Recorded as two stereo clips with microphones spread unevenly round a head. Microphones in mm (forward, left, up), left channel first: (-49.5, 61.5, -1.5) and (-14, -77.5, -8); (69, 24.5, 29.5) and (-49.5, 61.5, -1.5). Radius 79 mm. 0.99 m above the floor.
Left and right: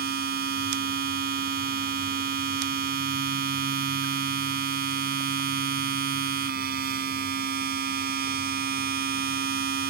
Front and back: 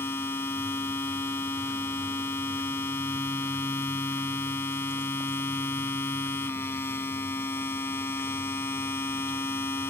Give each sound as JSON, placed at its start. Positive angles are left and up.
{"t": 0.0, "sound": "a machine running", "azimuth_deg": -90}